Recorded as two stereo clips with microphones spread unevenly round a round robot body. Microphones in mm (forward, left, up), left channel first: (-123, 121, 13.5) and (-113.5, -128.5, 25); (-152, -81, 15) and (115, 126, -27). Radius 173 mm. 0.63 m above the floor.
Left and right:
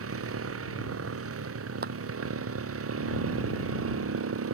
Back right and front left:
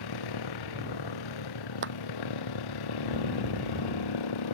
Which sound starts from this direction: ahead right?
A clap, at 1.8 s.